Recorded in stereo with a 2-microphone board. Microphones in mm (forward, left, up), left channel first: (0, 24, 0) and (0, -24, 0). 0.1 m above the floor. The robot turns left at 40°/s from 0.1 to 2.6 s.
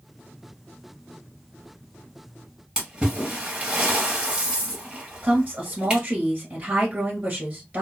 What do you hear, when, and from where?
2.8 s a splash: 15° right (ahead or behind), 1.8 m
5.2 s a woman speaking: 35° right (ahead or behind), 1.7 m